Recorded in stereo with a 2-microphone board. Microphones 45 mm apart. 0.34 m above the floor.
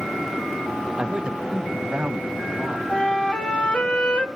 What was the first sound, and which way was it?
A man speaking, 20° right (ahead or behind).